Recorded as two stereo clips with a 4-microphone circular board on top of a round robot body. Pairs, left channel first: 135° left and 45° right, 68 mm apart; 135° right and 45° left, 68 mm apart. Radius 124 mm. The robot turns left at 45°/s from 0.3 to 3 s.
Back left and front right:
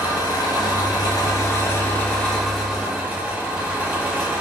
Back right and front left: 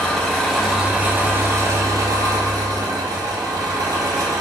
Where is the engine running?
145° left, 0.7 m; by 4.4 s 25° left, 0.7 m.